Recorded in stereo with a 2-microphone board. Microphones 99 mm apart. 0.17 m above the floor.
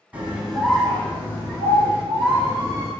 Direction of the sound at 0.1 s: 15° right (ahead or behind).